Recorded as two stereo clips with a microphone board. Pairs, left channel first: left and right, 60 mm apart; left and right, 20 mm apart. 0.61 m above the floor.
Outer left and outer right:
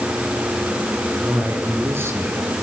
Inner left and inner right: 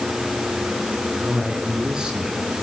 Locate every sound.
1.2 s a man speaking: 40° right (ahead or behind), 9 m; by 2.5 s 45° right (ahead or behind), 8.5 m